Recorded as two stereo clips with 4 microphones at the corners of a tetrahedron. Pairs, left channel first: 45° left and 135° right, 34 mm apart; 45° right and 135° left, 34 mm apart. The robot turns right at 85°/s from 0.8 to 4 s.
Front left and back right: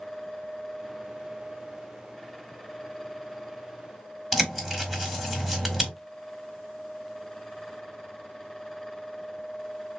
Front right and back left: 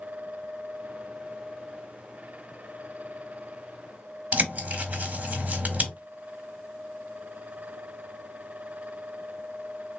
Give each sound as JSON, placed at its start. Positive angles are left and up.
{"t": 4.3, "sound": "a bird", "azimuth_deg": 155, "distance_m": 1.4}